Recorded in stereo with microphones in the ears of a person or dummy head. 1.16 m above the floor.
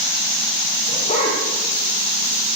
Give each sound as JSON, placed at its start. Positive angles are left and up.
{"t": 0.9, "sound": "a dog barking", "side_deg": 35, "distance_m": 8.0}